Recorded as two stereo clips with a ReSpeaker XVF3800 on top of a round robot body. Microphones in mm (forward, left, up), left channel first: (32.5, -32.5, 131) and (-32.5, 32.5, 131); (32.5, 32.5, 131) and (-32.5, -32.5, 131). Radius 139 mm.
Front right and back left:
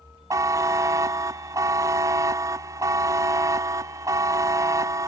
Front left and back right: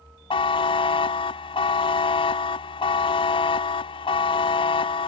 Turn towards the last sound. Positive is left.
turn(degrees=75)